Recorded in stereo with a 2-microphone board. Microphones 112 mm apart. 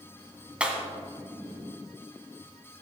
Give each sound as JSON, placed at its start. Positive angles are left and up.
{"t": 0.6, "sound": "breaking glass", "side_deg": -10, "distance_m": 1.8}